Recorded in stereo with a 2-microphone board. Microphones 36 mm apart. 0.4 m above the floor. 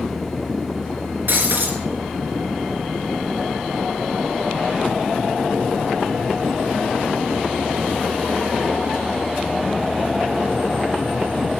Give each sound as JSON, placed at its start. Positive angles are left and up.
{"t": 1.3, "sound": "breaking glass", "side_deg": -60, "distance_m": 3.0}